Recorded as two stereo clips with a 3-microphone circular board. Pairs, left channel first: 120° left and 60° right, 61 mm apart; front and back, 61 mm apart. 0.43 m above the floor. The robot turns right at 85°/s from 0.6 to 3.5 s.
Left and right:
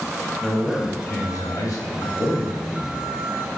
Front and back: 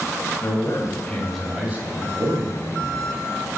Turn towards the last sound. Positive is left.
turn(degrees=-90)